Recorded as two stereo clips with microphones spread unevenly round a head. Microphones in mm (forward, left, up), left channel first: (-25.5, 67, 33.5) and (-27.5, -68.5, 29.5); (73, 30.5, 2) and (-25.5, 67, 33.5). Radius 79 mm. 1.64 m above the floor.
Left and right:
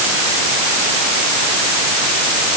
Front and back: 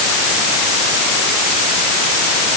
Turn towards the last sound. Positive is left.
No sound to turn to.